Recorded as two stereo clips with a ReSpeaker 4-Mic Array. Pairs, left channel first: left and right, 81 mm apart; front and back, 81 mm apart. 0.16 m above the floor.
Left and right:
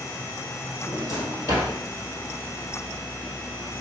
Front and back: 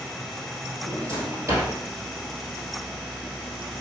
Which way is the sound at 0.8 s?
125° left.